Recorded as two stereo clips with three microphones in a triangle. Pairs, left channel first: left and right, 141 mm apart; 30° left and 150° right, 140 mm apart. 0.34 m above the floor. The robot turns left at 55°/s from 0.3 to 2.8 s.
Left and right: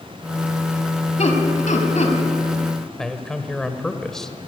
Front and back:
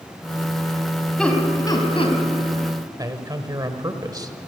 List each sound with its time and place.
1.2 s laughter: 115° left, 3 m; by 2.2 s 60° left, 3 m
3.0 s a man speaking: 175° left, 1.5 m